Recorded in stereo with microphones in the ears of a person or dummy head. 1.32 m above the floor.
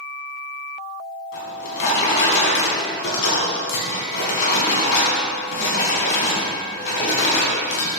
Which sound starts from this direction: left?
A drawer, at 1.3 s.